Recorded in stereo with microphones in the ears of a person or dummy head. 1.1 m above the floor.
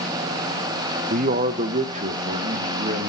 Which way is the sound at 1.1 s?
40° right (ahead or behind).